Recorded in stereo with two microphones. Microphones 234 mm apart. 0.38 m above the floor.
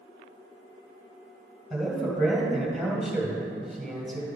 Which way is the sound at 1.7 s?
Centre (ahead or behind).